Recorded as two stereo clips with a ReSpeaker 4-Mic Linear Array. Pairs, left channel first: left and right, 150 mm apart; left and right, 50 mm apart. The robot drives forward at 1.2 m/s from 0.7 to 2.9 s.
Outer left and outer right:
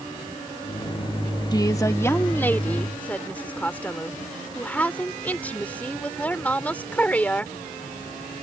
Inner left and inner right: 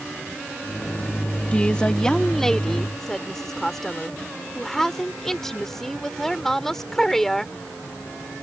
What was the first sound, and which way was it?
A woman speaking, 25° left (ahead or behind).